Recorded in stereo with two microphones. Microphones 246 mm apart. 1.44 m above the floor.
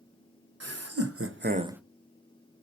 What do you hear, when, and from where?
0.6 s laughter: 80° right, 1.5 m; by 1.8 s centre (ahead or behind), 0.6 m